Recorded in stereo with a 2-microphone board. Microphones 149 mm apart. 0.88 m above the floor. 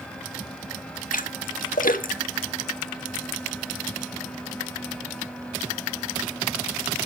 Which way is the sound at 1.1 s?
65° left (ahead or behind).